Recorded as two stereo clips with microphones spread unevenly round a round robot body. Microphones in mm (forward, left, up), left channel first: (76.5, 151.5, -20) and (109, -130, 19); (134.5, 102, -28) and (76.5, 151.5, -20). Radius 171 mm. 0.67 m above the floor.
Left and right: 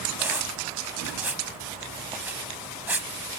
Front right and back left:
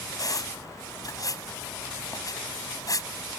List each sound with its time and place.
0.2 s a squeak: straight ahead